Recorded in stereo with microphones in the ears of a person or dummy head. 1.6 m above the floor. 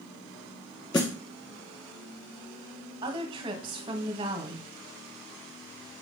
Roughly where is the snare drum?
Centre.